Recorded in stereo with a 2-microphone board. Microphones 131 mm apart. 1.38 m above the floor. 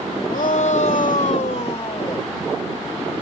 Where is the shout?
85° left; by 2.3 s 35° left (ahead or behind).